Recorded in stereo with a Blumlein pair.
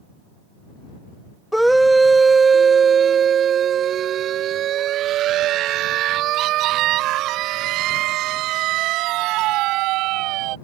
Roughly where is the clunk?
No clunk in this recording.